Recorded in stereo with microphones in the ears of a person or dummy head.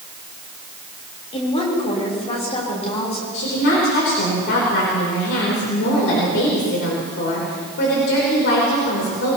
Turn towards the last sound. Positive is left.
turn(degrees=60)  # may be behind; listen again after turning